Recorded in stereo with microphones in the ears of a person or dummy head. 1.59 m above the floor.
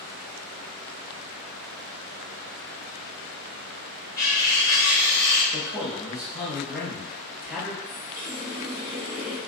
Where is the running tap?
15° right (ahead or behind), 0.8 m.